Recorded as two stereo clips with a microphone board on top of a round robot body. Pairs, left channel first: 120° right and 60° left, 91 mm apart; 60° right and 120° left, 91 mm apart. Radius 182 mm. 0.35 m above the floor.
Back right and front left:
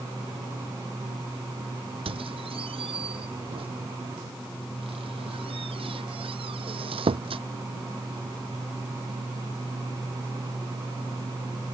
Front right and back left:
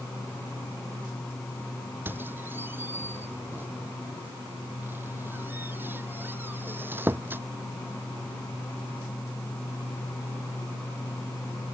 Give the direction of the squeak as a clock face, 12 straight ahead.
10 o'clock.